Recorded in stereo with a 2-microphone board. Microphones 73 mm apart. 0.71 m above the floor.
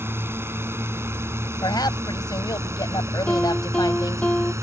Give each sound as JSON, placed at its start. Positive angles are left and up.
{"t": 0.0, "sound": "a drone", "side_deg": -35}
{"t": 1.6, "sound": "a woman speaking", "side_deg": 75}
{"t": 3.3, "sound": "a piano", "side_deg": 15}